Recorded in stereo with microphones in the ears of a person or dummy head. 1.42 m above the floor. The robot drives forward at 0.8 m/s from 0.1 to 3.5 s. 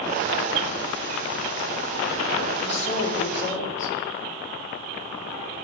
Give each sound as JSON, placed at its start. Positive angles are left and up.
{"t": 2.6, "sound": "a woman speaking", "side_deg": 35, "distance_m": 4.0}